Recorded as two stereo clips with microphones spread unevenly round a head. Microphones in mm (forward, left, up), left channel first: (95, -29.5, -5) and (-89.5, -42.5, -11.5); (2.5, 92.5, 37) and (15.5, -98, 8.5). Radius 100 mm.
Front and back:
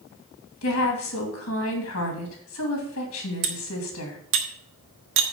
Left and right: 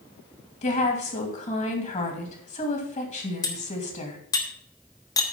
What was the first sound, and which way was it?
A woman speaking, 35° left.